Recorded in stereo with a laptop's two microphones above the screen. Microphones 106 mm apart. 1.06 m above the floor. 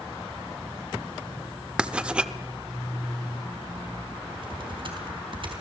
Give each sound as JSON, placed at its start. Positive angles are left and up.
{"t": 1.8, "sound": "writing", "side_deg": -10, "distance_m": 0.8}
{"t": 4.3, "sound": "typing on a keyboard", "side_deg": -50, "distance_m": 4.0}